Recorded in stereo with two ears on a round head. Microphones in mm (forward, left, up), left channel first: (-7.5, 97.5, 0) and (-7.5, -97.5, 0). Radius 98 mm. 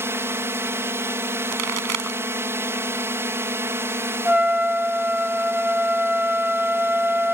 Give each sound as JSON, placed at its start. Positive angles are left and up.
{"t": 0.0, "sound": "a drone", "side_deg": -10}
{"t": 1.5, "sound": "a pop", "side_deg": -85}
{"t": 4.2, "sound": "a trumpet", "side_deg": -5}